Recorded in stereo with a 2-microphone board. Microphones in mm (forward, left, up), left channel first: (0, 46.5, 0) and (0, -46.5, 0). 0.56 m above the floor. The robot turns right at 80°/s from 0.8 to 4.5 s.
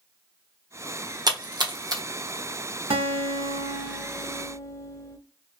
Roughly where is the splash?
Right.